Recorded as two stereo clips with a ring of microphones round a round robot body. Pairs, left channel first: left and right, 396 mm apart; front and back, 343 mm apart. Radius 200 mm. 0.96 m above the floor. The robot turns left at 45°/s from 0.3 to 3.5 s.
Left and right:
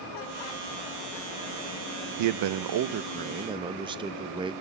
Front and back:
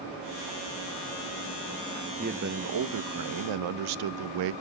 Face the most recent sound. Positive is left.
turn(degrees=-170)